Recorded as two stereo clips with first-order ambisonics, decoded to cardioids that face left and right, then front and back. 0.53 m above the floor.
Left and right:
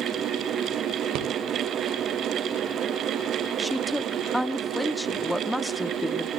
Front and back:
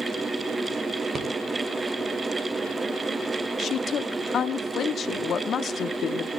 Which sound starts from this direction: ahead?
A woman speaking, at 3.6 s.